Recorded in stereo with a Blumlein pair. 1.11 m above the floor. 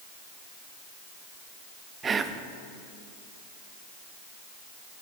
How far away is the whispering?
About 0.7 m.